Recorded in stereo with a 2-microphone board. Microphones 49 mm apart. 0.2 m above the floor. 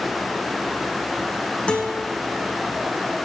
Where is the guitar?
25° left (ahead or behind), 2.5 m.